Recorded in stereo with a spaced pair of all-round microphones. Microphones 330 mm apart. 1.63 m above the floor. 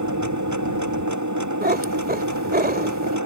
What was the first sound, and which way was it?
A machine running, 60° right (ahead or behind).